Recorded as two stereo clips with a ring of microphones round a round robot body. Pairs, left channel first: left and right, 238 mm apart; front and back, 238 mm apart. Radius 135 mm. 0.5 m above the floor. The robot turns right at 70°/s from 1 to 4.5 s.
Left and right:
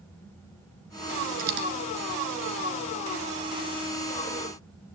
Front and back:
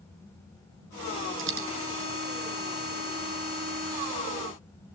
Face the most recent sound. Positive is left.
turn(degrees=75)